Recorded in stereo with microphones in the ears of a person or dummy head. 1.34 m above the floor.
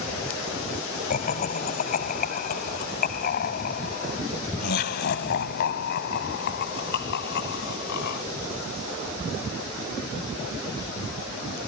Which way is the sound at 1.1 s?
45° left (ahead or behind).